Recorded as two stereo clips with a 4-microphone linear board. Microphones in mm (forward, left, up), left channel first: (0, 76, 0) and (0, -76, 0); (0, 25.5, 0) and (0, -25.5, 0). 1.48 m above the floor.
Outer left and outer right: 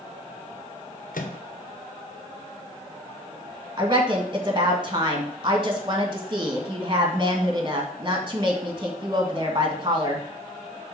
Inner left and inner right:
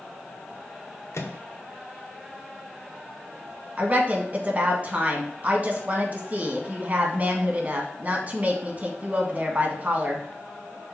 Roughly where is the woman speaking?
Right.